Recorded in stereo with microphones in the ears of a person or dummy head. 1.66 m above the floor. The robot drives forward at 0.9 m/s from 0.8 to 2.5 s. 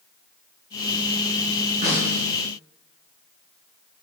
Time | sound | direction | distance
1.8 | a snare drum | 40° right (ahead or behind) | 5.5 m